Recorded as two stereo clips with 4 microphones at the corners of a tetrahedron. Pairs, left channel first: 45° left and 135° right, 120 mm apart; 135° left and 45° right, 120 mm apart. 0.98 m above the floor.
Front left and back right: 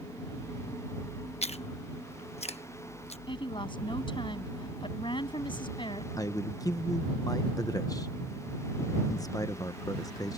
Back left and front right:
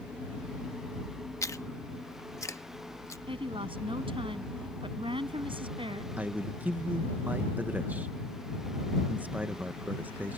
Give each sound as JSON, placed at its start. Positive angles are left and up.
{"t": 1.4, "sound": "chewing", "azimuth_deg": 70}
{"t": 3.3, "sound": "a woman speaking", "azimuth_deg": 0}
{"t": 6.2, "sound": "a man speaking", "azimuth_deg": 20}